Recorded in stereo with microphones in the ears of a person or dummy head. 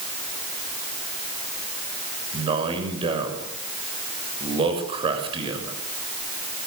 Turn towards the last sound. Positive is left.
turn(degrees=-30)  # may be behind; listen again after turning